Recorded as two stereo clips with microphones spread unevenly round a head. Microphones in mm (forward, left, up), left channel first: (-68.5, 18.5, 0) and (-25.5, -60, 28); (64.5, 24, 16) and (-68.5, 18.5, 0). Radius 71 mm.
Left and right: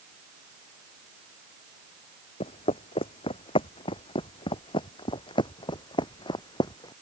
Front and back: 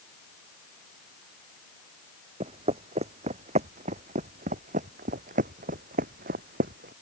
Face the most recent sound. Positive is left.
turn(degrees=160)